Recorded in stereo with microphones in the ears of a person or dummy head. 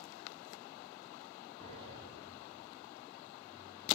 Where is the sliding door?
25° left (ahead or behind), 5 m.